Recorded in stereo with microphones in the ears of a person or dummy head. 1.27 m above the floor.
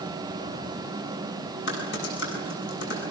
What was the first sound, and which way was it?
Typing on a keyboard, 70° left (ahead or behind).